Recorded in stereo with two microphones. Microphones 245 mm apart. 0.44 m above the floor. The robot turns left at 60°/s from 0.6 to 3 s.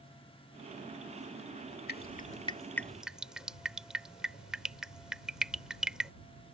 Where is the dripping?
40° left (ahead or behind); by 6.1 s 5° right (ahead or behind).